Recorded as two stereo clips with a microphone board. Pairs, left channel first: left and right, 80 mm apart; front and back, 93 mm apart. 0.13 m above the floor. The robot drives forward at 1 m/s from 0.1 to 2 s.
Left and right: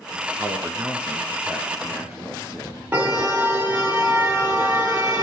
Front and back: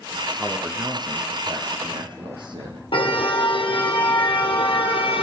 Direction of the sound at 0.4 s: 125° right.